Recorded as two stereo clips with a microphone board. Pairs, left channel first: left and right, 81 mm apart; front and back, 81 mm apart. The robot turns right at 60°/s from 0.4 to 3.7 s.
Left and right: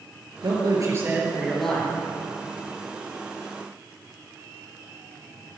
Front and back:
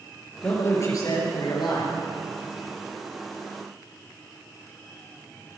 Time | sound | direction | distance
0.4 | a man speaking | 70° right | 5 m